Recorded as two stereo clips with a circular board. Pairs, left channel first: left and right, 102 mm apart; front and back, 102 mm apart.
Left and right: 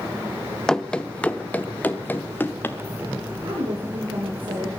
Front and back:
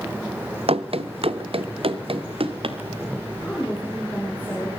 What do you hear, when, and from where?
0.7 s running footsteps: 175° left, 0.9 m; by 2.8 s 160° left, 2 m
3.4 s a woman speaking: 70° right, 6.5 m